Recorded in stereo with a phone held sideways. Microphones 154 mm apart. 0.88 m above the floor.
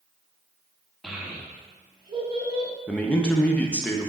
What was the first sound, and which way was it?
A child speaking, centre (ahead or behind).